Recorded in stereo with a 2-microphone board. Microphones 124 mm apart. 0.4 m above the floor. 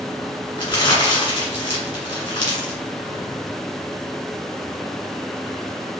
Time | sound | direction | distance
0.6 | crumpling | 40° left (ahead or behind) | 1.7 m